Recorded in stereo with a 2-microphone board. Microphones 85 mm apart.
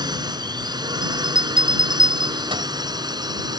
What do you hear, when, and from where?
0.0 s a drone: 55° right (ahead or behind)
1.0 s a bell: 90° right